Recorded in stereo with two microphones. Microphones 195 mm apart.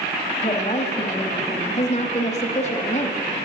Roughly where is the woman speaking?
Left.